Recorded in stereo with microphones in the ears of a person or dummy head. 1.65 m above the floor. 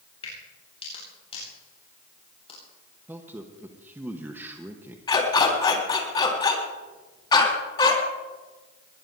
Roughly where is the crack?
Left.